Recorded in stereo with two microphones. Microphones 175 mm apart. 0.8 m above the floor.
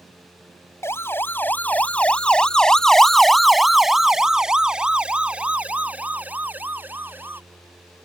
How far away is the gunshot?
I don't hear a gunshot.